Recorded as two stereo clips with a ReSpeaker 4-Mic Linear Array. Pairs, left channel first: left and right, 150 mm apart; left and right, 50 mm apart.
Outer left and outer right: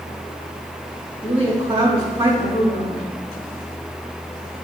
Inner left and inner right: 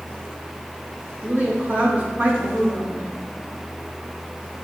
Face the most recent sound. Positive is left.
turn(degrees=-35)  # may be behind; listen again after turning